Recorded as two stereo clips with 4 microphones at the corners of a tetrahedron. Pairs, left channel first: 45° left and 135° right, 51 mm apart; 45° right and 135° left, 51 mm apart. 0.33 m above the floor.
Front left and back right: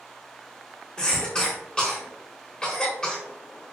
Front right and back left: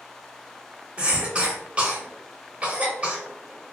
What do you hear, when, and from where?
1.0 s a cough: 100° left, 0.9 m